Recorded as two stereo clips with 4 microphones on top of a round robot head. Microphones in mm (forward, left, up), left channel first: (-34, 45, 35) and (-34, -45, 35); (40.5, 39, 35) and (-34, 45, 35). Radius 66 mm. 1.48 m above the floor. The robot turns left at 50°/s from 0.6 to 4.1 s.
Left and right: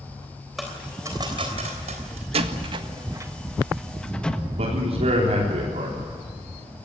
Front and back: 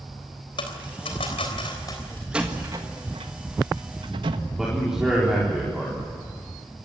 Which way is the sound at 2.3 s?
105° right.